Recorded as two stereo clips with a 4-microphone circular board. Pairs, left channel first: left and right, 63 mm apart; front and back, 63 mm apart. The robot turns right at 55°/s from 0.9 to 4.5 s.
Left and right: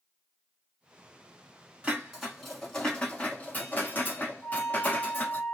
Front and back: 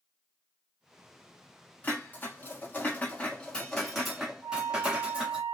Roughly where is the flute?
Behind.